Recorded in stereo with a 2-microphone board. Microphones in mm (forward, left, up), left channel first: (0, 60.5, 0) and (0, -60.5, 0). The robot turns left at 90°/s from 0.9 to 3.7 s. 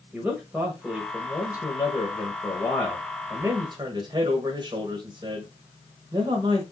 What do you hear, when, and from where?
0.1 s a man speaking: 170° right, 1.2 m; by 6.6 s 60° right, 1.2 m